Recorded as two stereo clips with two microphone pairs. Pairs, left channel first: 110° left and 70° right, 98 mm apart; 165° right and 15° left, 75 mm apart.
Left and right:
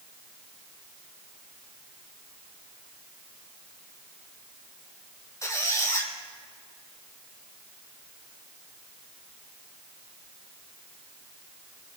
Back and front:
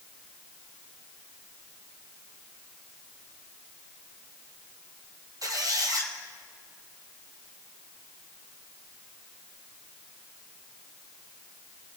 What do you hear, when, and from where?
5.4 s a squeak: 50° left, 2 m